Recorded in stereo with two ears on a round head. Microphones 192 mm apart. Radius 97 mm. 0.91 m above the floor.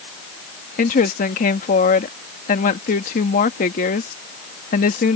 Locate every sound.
0.8 s a woman speaking: 40° left (ahead or behind)